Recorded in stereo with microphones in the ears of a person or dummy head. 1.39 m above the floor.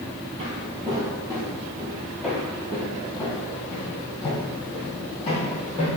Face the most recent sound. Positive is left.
turn(degrees=40)  # may be behind; listen again after turning